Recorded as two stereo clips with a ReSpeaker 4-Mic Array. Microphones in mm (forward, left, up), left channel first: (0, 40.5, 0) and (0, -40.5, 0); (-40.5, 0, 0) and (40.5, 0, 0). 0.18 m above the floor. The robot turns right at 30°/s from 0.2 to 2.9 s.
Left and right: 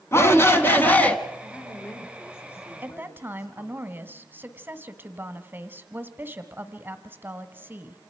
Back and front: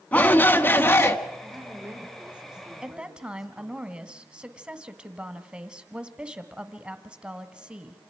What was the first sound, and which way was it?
A shout, 120° left.